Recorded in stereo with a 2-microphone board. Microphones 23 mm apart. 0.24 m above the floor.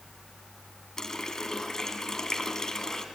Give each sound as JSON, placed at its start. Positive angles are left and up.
{"t": 1.0, "sound": "a running tap", "side_deg": 25, "distance_m": 1.5}